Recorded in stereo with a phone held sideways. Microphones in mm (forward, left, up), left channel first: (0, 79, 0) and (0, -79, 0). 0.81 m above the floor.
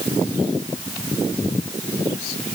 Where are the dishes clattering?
I don't hear dishes clattering.